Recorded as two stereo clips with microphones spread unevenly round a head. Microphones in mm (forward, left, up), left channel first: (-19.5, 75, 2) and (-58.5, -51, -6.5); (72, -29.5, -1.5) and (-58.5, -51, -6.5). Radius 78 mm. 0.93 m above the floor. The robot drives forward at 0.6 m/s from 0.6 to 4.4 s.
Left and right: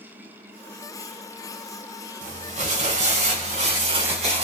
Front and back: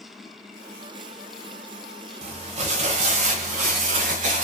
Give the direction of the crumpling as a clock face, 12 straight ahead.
5 o'clock.